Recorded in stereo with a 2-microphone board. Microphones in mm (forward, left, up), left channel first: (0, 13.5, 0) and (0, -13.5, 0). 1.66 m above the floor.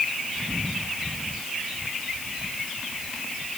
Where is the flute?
I don't hear a flute.